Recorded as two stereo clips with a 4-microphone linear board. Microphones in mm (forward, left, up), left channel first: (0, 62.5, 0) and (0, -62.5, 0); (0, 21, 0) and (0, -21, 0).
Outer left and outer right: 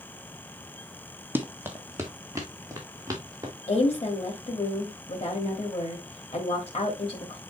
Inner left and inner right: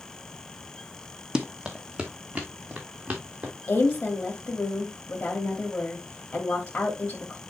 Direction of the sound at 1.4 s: 15° right (ahead or behind).